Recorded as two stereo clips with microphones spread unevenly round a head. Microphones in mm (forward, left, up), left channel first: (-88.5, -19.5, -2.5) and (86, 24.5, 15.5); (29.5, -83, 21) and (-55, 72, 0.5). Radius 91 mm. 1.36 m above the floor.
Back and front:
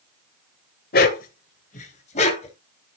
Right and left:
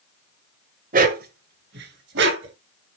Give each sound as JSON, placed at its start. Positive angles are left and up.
{"t": 0.9, "sound": "a dog barking", "azimuth_deg": 160, "distance_m": 1.7}